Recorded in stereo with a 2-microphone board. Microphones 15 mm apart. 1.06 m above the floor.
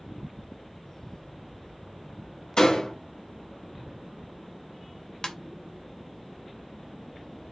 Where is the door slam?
60° left (ahead or behind), 1.5 m.